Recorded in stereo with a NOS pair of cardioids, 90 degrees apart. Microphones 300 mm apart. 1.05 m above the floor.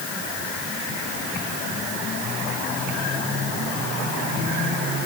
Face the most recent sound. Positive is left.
No sound to turn to.